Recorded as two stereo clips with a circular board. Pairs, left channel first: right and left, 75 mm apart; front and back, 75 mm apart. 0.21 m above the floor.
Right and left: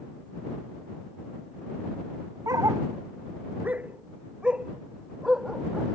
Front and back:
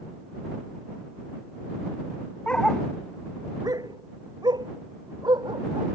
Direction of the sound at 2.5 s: 70° left.